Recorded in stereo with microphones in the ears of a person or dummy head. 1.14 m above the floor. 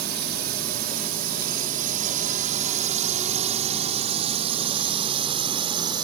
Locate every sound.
0.0 s a drone: 65° right (ahead or behind); by 6.0 s 30° right (ahead or behind)